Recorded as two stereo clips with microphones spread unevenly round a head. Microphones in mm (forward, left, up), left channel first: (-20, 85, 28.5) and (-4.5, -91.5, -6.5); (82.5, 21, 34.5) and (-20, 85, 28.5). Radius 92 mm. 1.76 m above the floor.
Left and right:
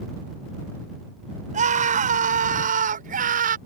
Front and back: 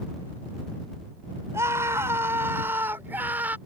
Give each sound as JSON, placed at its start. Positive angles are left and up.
{"t": 1.5, "sound": "a scream", "azimuth_deg": -135}